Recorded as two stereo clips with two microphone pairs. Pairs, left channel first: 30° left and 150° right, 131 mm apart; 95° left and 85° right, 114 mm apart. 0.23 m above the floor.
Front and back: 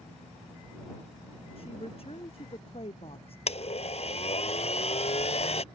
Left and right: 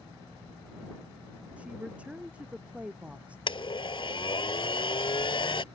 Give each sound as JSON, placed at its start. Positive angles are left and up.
{"t": 1.6, "sound": "a woman speaking", "azimuth_deg": -5}
{"t": 3.5, "sound": "a blender", "azimuth_deg": 60}